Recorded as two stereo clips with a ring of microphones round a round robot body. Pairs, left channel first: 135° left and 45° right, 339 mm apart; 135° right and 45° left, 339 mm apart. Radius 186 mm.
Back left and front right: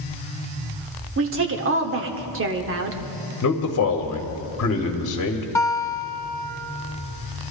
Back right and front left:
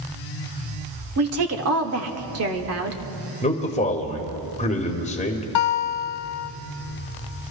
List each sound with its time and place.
1.2 s a woman speaking: 5° left, 1.3 m
3.4 s a man speaking: 160° left, 1.3 m
5.5 s a guitar: 145° right, 0.8 m